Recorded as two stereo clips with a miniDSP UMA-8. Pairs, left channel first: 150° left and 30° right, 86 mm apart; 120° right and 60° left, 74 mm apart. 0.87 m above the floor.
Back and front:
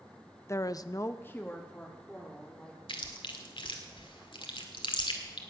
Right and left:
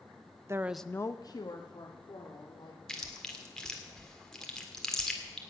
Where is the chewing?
155° left, 1.7 m.